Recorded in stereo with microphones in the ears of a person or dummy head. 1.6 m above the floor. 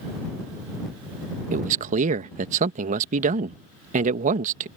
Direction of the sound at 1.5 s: 40° right (ahead or behind).